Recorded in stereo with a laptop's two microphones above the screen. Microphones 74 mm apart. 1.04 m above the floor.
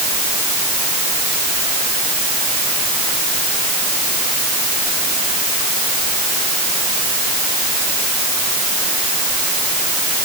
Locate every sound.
Only background noise.